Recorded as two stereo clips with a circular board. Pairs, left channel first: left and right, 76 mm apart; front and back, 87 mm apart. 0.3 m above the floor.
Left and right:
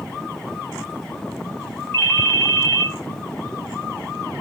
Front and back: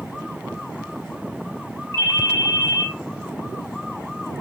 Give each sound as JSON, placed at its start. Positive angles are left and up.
{"t": 1.9, "sound": "a ringtone", "azimuth_deg": 150, "distance_m": 2.0}